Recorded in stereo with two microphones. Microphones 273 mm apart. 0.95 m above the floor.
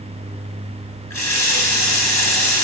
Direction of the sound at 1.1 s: 90° left.